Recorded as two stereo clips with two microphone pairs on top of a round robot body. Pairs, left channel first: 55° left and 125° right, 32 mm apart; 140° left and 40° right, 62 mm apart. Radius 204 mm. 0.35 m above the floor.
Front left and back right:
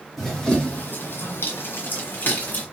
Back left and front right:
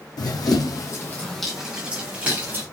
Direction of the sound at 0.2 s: 140° left.